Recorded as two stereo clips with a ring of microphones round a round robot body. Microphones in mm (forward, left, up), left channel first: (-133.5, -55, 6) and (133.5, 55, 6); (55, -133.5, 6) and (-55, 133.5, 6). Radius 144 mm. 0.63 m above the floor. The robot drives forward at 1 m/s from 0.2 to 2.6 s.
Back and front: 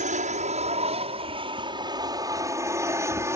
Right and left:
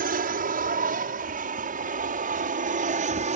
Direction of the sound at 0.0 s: 70° left.